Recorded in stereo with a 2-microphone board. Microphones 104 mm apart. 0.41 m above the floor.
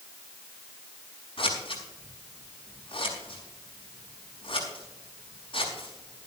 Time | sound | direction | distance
1.4 | scissors | 55° left (ahead or behind) | 6 m